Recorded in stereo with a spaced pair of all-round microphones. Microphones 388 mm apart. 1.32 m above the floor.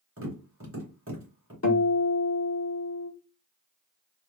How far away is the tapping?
About 1.6 m.